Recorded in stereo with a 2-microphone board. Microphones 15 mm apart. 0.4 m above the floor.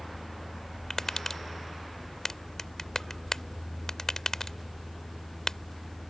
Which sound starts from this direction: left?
Tapping, at 0.9 s.